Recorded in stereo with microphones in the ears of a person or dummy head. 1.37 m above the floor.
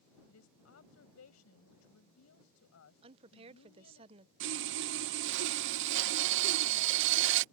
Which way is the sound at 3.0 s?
30° right (ahead or behind).